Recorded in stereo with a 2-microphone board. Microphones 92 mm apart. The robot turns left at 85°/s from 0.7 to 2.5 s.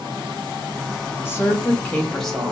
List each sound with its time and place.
1.2 s a woman speaking: 25° left (ahead or behind), 1.0 m; by 2.5 s 5° right (ahead or behind), 1.0 m